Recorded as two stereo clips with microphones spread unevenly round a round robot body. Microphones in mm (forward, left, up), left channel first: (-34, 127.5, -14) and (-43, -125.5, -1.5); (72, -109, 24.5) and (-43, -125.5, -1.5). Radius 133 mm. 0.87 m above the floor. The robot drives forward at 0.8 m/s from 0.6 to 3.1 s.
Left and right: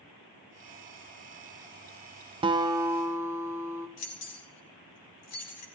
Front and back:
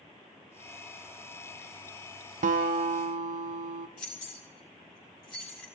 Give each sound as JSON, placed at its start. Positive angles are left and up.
{"t": 2.4, "sound": "a guitar", "azimuth_deg": -165, "distance_m": 0.5}
{"t": 4.0, "sound": "keys jangling", "azimuth_deg": 50, "distance_m": 3.0}